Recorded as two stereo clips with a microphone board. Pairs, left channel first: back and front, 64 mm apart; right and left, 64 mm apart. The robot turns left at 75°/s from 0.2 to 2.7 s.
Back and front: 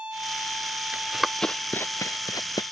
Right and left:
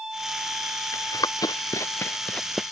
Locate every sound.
0.9 s running footsteps: 65° right; by 2.6 s 175° left